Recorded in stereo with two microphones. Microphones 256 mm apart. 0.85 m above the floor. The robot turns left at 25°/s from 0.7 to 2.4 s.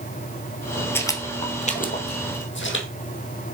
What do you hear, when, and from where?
0.9 s footsteps: 10° left (ahead or behind), 1.2 m; by 2.9 s 50° left (ahead or behind), 2 m